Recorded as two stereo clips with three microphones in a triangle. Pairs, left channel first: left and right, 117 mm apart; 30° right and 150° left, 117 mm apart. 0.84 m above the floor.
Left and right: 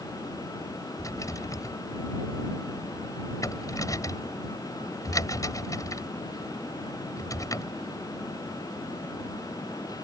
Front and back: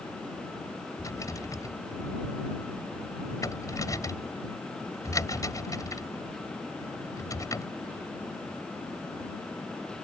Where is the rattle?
30° left.